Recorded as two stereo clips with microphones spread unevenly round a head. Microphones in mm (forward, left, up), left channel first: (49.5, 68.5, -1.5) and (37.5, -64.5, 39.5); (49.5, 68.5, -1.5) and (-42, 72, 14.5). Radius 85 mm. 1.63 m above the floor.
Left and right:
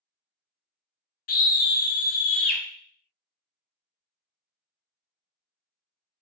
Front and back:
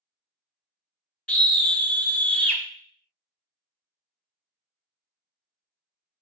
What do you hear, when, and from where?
1.3 s a scream: 80° left, 0.7 m